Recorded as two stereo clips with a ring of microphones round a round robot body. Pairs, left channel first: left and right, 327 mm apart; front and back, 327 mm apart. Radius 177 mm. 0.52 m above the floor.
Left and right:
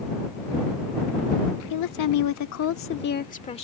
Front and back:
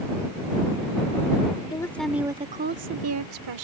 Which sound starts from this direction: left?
A woman speaking, at 1.7 s.